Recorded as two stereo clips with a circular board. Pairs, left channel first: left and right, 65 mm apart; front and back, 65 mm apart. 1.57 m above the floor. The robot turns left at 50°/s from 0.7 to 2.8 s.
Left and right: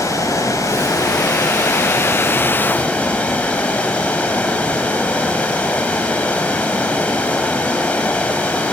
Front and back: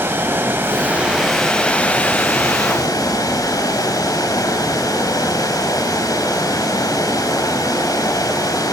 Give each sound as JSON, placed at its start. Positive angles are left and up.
{"t": 0.0, "sound": "running water", "azimuth_deg": 125, "distance_m": 5.5}